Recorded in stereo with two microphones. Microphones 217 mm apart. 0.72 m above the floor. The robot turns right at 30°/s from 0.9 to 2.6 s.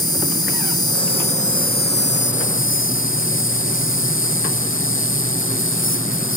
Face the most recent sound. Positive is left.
turn(degrees=70)